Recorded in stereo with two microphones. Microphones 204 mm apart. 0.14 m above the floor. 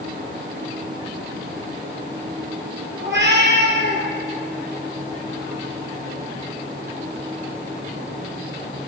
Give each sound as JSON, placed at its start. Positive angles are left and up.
{"t": 3.0, "sound": "a cat meowing", "side_deg": -60, "distance_m": 1.5}